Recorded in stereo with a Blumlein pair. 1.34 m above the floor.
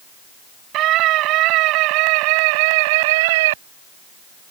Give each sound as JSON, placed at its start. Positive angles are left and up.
{"t": 0.7, "sound": "a scream", "azimuth_deg": -35}